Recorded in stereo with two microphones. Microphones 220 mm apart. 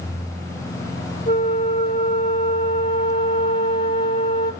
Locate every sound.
1.3 s a flute: 40° left (ahead or behind), 1.9 m